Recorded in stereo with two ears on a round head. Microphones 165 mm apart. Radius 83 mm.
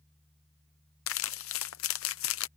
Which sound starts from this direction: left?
Crumpling, at 1.1 s.